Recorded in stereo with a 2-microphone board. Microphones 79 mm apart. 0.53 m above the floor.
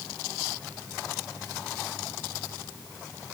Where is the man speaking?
No man speaking in this recording.